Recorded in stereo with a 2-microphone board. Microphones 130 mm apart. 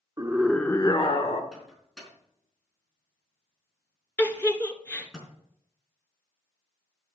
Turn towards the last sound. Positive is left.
turn(degrees=10)  # may be behind; listen again after turning